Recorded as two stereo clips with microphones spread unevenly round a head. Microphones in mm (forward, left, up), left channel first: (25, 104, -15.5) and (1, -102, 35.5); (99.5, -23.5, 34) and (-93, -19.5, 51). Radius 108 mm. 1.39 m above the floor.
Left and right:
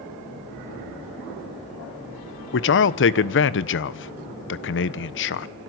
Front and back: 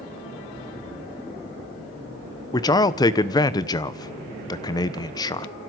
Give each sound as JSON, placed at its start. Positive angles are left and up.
{"t": 2.5, "sound": "a man speaking", "azimuth_deg": 70, "distance_m": 1.2}